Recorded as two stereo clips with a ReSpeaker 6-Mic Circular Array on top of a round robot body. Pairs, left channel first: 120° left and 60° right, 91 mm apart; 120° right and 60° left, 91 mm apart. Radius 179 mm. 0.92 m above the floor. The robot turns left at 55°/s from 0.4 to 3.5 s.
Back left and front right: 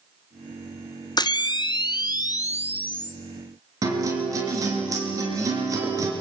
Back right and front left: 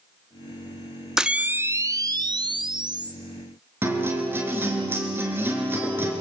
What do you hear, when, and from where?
1.2 s a camera shutter: 145° left, 1.3 m; by 3.1 s 35° left, 1.3 m
3.8 s a guitar: 5° right, 3.5 m